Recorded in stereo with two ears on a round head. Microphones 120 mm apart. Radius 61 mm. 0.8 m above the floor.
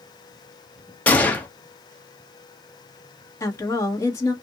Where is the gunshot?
10° left (ahead or behind), 0.8 m.